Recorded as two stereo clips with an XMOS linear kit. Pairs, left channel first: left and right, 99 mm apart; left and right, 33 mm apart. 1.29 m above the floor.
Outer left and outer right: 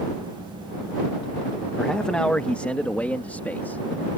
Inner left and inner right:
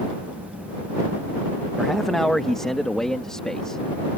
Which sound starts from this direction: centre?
A man speaking, at 1.8 s.